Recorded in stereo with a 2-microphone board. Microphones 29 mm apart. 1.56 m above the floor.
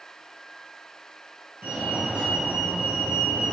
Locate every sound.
1.6 s a fire alarm: 75° right (ahead or behind), 3 m